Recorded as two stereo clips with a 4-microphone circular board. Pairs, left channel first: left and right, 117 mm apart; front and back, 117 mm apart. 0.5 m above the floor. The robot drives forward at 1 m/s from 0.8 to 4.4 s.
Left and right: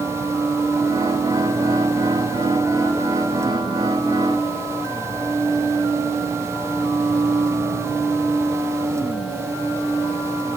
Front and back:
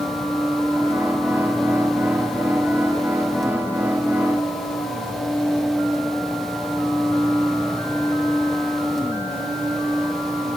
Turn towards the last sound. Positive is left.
No sound to turn to.